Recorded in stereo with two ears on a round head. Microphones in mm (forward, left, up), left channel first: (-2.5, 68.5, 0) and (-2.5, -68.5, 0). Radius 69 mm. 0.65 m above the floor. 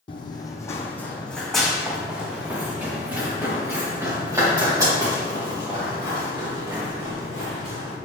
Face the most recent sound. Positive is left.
turn(degrees=-25)  # may be behind; listen again after turning